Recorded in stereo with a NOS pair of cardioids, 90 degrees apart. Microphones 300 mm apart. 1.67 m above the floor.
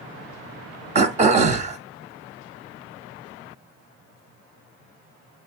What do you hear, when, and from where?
0.9 s throat clearing: 25° right, 0.7 m